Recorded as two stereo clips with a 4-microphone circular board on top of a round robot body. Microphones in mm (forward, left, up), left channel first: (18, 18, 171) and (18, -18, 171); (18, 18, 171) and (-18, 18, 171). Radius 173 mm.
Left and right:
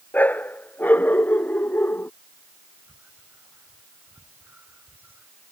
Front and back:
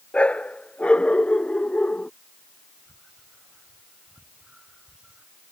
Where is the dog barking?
55° left; by 2.1 s 60° left.